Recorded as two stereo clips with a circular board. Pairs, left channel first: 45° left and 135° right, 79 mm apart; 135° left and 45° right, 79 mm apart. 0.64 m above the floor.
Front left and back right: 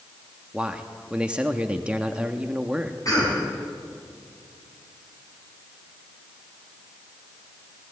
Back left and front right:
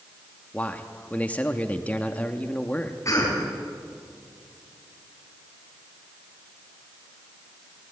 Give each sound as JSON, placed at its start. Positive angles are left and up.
{"t": 0.5, "sound": "a man speaking", "azimuth_deg": 170, "distance_m": 1.1}
{"t": 3.0, "sound": "a cough", "azimuth_deg": 85, "distance_m": 4.5}